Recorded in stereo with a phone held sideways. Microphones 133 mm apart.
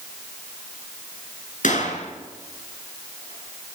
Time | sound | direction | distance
1.6 | a gunshot | 70° left (ahead or behind) | 7 m